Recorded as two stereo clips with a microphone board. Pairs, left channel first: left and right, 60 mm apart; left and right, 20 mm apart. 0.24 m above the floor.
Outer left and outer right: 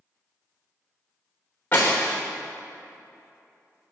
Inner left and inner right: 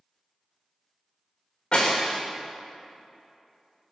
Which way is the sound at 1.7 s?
35° left (ahead or behind).